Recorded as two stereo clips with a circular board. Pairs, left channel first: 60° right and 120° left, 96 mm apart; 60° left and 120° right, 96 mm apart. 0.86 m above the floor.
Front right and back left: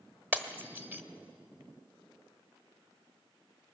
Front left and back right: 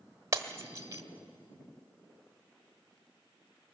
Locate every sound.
0.3 s breaking glass: 175° right, 1.2 m